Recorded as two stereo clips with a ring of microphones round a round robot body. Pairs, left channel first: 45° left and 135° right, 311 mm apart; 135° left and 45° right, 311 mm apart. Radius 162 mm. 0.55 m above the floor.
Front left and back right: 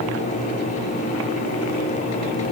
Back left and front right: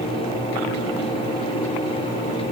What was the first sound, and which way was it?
Only background noise.